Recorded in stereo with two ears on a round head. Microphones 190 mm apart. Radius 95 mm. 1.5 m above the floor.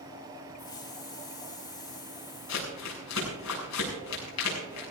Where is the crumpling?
85° left, 6.5 m.